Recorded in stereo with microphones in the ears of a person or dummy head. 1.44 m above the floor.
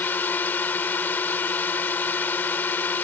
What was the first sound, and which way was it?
A drone, 10° left (ahead or behind).